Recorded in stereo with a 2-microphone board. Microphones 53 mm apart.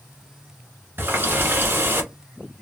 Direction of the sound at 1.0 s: 40° right (ahead or behind).